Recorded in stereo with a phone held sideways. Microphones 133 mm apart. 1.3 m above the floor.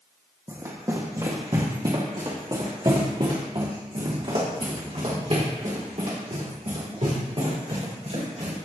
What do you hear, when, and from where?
0.5 s running footsteps: 25° right (ahead or behind), 2.5 m; by 8.6 s 60° right (ahead or behind), 6.5 m